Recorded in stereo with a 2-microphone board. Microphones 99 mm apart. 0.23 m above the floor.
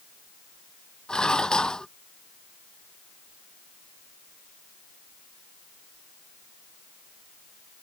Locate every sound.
1.1 s dishes clattering: 10° left (ahead or behind)